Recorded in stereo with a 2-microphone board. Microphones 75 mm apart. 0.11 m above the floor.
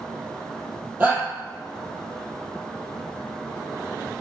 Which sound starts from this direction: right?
A shout, at 1.0 s.